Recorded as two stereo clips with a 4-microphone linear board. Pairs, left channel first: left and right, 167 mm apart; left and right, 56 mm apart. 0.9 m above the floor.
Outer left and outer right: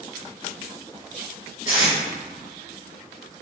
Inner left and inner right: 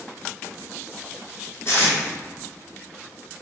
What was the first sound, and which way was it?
Tape being pulled, 45° left (ahead or behind).